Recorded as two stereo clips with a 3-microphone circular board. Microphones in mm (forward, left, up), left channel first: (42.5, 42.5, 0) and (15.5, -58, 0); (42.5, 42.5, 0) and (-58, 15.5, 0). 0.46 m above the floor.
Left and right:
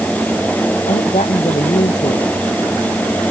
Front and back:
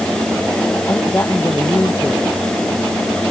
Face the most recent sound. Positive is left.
turn(degrees=85)